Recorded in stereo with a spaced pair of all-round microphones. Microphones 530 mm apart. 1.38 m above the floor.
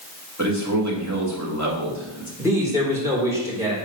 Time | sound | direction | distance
0.4 | a man speaking | 30° right (ahead or behind) | 2.5 m
2.4 | a man speaking | 5° right (ahead or behind) | 4 m